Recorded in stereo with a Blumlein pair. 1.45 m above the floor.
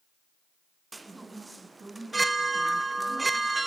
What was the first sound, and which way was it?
A chime, 10° right.